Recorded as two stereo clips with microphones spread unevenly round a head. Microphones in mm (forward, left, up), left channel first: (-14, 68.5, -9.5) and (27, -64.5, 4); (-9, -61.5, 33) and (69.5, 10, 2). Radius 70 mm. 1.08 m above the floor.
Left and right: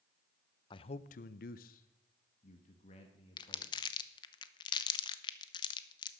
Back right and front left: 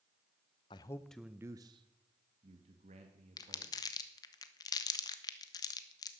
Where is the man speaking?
165° left, 0.5 m; by 3.7 s 55° left, 1.9 m.